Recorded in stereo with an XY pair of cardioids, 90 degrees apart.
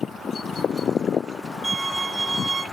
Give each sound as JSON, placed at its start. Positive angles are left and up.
{"t": 1.6, "sound": "a violin", "azimuth_deg": -30, "distance_m": 4.5}